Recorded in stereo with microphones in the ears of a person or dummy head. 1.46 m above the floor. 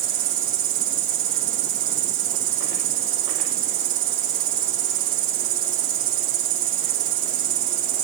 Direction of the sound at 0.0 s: 70° right (ahead or behind).